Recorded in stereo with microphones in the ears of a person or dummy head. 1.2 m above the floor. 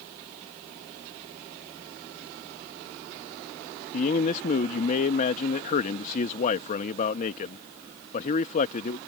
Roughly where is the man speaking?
Left.